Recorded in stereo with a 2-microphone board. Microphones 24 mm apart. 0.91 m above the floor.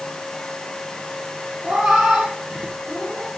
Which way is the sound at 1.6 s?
70° right (ahead or behind).